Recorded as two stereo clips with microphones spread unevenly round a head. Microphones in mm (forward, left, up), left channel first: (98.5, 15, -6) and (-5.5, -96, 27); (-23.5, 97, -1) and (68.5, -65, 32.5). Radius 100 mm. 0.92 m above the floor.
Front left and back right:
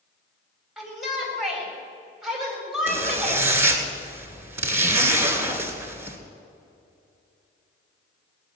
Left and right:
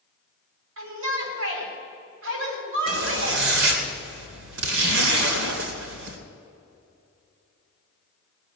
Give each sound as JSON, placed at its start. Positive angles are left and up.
{"t": 0.8, "sound": "a shout", "azimuth_deg": -45, "distance_m": 6.5}
{"t": 2.9, "sound": "a zipper", "azimuth_deg": -65, "distance_m": 2.5}